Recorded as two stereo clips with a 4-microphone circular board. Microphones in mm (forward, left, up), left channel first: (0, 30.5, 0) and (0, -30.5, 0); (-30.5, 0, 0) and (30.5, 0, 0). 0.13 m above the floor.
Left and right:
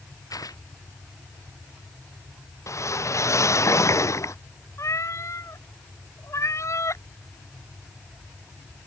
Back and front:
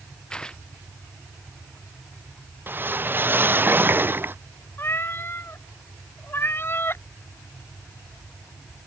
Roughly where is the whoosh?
Ahead left.